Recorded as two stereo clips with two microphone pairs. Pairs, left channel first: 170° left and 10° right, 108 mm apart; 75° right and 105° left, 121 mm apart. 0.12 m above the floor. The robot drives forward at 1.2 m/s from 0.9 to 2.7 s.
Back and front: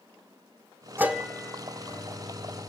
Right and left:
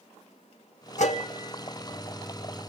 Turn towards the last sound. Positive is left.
turn(degrees=-150)